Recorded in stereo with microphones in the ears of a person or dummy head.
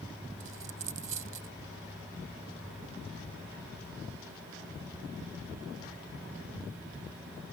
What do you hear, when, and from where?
0.4 s a dropped coin: 50° right (ahead or behind)